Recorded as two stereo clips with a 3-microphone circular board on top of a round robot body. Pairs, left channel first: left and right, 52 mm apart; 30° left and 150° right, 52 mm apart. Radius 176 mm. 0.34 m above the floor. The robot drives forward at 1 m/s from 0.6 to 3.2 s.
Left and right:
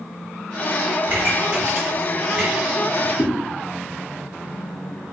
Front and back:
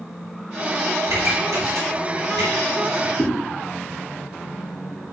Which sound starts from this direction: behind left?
A whoosh, at 3.2 s.